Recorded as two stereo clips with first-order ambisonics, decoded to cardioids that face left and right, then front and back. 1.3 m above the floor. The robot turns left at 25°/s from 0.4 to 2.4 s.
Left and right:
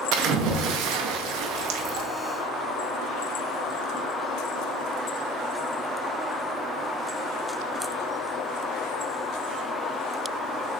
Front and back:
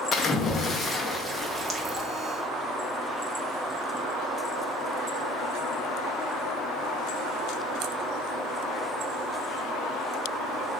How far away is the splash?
About 0.6 m.